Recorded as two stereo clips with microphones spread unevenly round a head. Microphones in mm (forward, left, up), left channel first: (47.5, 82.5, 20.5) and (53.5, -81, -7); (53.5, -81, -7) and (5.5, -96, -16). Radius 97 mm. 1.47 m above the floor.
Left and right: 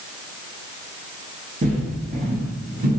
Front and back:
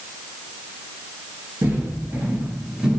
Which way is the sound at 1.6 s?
130° right.